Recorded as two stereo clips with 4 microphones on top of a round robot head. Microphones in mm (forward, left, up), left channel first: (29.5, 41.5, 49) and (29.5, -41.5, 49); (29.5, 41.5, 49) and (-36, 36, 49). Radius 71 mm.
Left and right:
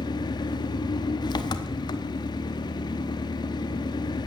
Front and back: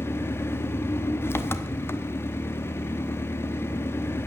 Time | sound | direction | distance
0.0 | an engine running | 55° left | 1.0 m